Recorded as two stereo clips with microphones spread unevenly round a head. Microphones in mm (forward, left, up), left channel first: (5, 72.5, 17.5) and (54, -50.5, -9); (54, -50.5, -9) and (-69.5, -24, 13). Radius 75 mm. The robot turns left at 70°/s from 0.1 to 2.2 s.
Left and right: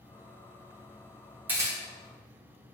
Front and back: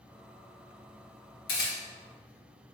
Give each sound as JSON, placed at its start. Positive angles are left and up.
{"t": 1.5, "sound": "a camera shutter", "azimuth_deg": 10, "distance_m": 1.0}